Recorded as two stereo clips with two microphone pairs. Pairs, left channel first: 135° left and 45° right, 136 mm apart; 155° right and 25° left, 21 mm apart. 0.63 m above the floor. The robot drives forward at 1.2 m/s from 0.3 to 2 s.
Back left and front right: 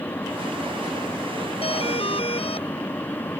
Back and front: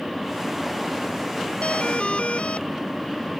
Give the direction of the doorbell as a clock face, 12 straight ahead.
6 o'clock.